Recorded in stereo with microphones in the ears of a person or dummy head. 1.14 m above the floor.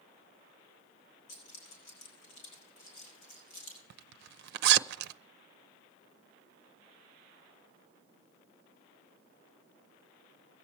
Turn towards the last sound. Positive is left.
turn(degrees=-60)  # may be behind; listen again after turning